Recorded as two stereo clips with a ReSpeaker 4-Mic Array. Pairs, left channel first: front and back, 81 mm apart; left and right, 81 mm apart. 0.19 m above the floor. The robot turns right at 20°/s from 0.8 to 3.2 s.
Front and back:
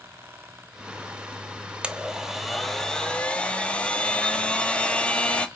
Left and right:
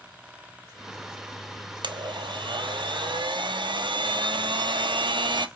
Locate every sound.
1.8 s a blender: 105° right, 1.0 m; by 5.5 s 75° right, 1.0 m